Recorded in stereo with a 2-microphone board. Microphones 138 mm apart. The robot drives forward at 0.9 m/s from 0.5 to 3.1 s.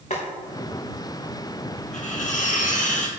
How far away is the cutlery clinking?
About 2 m.